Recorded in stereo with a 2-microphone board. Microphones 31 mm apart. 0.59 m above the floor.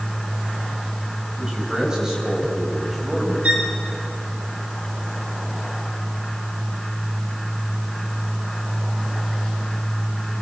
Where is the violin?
40° right (ahead or behind), 3 m.